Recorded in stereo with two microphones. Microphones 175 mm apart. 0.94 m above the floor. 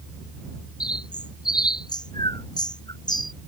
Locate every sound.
0.8 s a bird: 25° left (ahead or behind)